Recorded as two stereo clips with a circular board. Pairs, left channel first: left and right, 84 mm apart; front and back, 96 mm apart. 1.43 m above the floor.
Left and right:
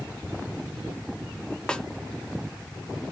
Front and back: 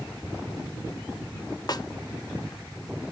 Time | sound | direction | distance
1.7 | a snare drum | 15° left | 0.5 m